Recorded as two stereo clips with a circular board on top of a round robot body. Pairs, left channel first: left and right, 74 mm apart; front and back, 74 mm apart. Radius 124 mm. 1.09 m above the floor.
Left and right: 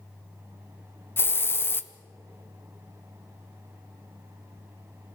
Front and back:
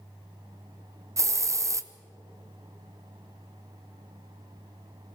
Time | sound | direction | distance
1.2 | a hiss | 145° left | 0.9 m